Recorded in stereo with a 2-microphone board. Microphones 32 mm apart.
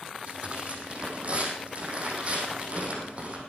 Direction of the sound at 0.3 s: 40° right (ahead or behind).